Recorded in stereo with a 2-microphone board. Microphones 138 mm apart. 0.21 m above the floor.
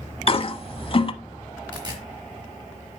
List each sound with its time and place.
0.3 s a toilet flushing: 40° left (ahead or behind), 0.7 m
1.7 s tearing paper: 30° right (ahead or behind), 4.5 m